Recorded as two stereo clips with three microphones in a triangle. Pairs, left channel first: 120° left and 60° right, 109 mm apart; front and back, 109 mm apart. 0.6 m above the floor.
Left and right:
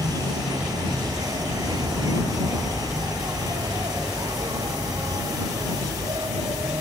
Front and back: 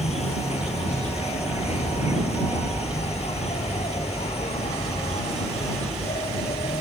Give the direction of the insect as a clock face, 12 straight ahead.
12 o'clock.